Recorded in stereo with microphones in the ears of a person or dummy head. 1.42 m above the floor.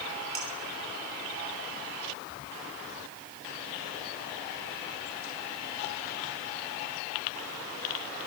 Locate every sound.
0.3 s dishes clattering: 30° right (ahead or behind), 2.5 m